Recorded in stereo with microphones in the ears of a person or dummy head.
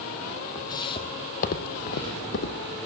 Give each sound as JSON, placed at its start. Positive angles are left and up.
{"t": 0.6, "sound": "footsteps", "side_deg": 20, "distance_m": 2.5}